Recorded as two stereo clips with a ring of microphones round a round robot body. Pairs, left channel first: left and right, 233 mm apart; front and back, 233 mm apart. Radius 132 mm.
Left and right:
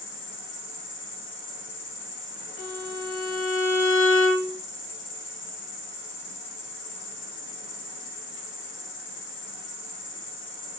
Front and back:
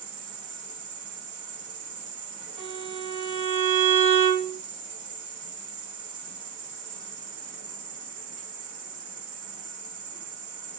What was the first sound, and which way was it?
An insect, 125° left.